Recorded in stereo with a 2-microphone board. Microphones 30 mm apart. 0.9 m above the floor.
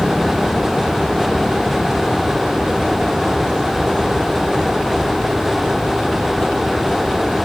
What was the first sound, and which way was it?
Only background noise.